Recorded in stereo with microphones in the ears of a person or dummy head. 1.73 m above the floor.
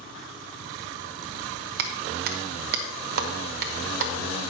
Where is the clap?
50° right (ahead or behind), 1.1 m.